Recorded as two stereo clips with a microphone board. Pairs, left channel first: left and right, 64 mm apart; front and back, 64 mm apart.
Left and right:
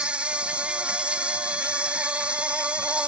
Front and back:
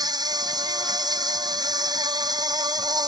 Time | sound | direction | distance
0.0 | an insect | 165° right | ?